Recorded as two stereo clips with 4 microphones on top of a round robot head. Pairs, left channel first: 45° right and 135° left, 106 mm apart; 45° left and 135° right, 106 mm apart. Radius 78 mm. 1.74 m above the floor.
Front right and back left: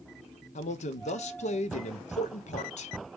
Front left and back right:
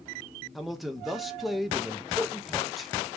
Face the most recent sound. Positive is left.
turn(degrees=-45)